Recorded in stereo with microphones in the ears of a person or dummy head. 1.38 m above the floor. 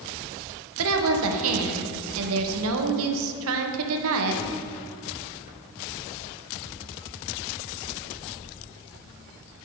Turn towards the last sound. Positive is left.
turn(degrees=-80)